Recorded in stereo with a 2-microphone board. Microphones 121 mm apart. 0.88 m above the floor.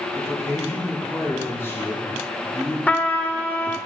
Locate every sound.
0.1 s a man speaking: 20° left (ahead or behind), 3.5 m
2.9 s a trumpet: 15° left (ahead or behind), 0.7 m